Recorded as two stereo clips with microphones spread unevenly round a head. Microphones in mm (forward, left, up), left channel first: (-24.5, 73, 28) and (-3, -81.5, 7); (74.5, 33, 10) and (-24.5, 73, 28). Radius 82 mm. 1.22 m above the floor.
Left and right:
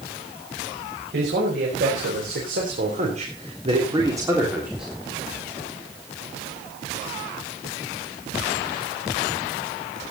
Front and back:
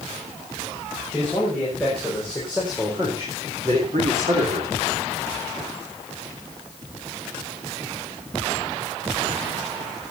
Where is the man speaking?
100° right, 6 m; by 4.9 s 170° right, 3 m.